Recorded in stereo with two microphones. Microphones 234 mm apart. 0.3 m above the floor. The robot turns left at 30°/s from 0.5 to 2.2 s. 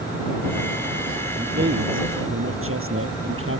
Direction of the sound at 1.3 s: 40° right (ahead or behind).